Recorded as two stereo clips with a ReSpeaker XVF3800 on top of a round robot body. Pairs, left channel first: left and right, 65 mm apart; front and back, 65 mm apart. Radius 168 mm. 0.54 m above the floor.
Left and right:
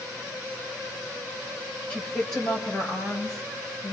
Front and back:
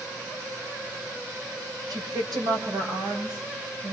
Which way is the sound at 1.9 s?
165° left.